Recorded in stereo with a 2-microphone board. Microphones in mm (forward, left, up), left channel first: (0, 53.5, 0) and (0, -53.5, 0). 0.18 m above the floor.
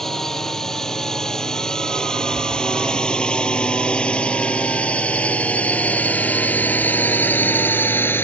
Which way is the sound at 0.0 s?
5° left (ahead or behind).